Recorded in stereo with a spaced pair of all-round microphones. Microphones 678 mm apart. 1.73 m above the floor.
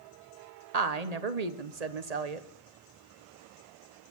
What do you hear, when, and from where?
0.7 s a woman speaking: 65° right (ahead or behind), 1.1 m